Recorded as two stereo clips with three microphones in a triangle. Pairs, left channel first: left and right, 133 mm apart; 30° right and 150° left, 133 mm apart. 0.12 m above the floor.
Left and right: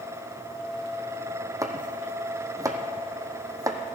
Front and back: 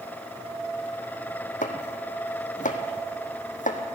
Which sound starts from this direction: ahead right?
Chopping, at 1.6 s.